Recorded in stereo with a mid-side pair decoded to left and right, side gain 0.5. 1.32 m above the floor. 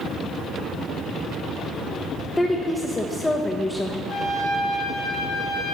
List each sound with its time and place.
2.4 s a woman speaking: 20° left, 0.8 m
4.1 s a trumpet: 55° left, 3 m